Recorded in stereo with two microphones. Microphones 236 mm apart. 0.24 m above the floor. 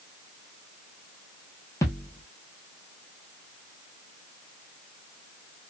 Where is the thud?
10° left (ahead or behind), 1.1 m.